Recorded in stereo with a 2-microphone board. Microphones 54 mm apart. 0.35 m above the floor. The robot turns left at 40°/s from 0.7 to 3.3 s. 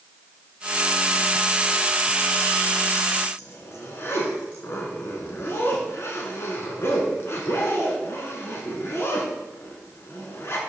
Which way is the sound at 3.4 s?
50° left (ahead or behind).